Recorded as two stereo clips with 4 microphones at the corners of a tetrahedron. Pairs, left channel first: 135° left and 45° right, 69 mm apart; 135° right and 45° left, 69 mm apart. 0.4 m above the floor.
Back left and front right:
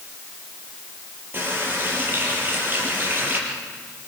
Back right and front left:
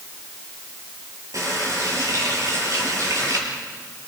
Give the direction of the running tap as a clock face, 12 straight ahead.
12 o'clock.